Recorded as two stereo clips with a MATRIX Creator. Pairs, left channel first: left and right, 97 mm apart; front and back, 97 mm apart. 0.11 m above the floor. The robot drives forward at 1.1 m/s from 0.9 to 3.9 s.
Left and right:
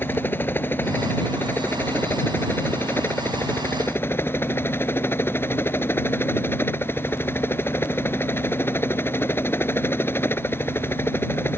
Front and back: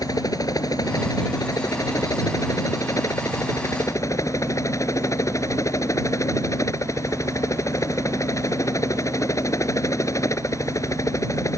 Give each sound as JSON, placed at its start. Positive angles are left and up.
{"t": 0.0, "sound": "a helicopter", "azimuth_deg": 30}